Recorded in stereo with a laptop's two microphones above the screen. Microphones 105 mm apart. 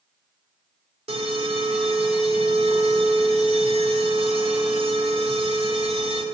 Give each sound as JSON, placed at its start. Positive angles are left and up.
{"t": 1.1, "sound": "an alarm", "side_deg": -70, "distance_m": 1.4}